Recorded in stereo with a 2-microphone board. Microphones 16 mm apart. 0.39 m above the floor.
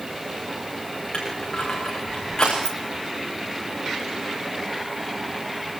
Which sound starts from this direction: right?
Keys jangling, at 2.6 s.